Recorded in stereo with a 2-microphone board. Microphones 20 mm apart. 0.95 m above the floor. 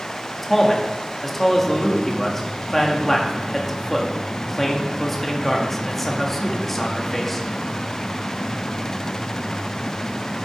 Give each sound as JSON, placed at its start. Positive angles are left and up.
{"t": 0.4, "sound": "a man speaking", "side_deg": 15, "distance_m": 2.0}